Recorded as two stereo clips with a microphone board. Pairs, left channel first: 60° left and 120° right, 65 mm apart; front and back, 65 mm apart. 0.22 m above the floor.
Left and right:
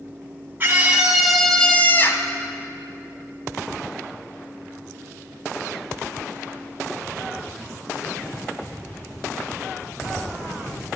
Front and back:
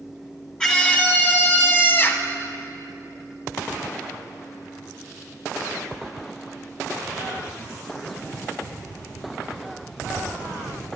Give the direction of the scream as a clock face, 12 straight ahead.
2 o'clock.